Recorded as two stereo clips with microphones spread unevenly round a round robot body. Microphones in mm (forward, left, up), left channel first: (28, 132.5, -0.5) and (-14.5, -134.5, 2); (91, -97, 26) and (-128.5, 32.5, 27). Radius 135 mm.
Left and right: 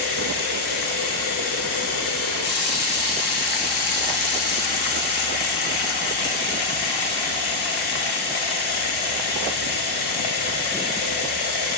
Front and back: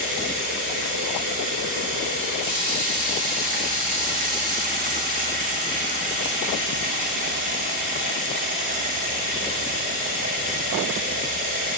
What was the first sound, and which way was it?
Running water, 90° left.